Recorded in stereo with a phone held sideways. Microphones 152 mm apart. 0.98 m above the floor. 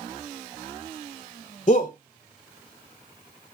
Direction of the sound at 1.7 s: 45° left (ahead or behind).